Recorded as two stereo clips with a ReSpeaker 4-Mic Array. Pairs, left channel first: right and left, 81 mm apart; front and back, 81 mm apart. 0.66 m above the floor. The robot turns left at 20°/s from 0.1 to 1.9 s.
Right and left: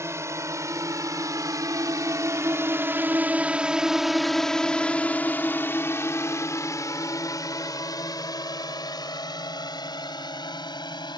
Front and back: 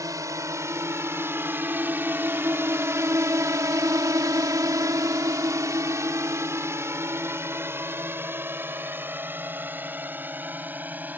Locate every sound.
0.0 s a drone: 140° left; by 11.2 s 110° right